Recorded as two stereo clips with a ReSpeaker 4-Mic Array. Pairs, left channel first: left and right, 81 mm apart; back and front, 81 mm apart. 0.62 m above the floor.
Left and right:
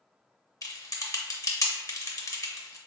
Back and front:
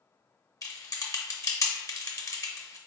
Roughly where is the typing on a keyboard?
Behind left.